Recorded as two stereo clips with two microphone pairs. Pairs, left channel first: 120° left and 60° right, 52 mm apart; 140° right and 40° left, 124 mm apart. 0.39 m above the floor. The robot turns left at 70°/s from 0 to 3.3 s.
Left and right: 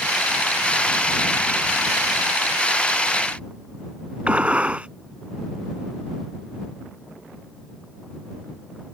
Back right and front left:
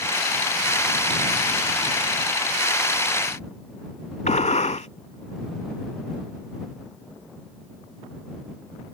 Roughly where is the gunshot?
Behind right.